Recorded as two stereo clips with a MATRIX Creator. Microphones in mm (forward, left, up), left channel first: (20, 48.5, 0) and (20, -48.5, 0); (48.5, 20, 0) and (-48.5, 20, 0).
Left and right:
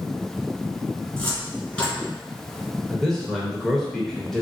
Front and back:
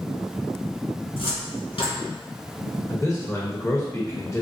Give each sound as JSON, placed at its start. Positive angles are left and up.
{"t": 1.1, "sound": "a cupboard door", "azimuth_deg": 20, "distance_m": 1.9}
{"t": 2.9, "sound": "a man speaking", "azimuth_deg": 10, "distance_m": 0.9}